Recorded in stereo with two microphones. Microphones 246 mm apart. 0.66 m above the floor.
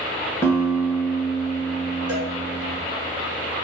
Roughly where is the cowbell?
Right.